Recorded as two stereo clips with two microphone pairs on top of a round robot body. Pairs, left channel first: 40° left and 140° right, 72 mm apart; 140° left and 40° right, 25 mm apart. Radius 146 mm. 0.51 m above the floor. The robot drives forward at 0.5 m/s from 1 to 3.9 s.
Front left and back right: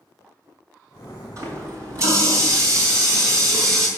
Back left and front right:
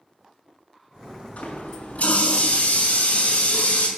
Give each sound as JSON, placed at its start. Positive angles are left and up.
{"t": 1.4, "sound": "a running tap", "azimuth_deg": 170, "distance_m": 5.0}